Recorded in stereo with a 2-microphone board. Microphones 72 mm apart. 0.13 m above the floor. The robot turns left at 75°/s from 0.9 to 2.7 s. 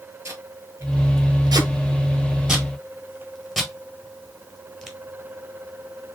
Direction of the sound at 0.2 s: 45° right (ahead or behind).